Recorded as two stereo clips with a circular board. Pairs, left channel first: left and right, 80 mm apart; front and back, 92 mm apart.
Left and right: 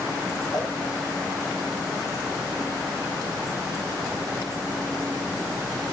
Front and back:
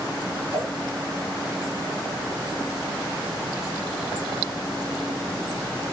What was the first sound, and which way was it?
A whoosh, 65° left.